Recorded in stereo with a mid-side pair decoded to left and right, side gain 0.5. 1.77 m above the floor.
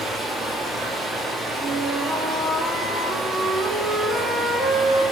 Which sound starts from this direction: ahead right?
A flute, at 1.6 s.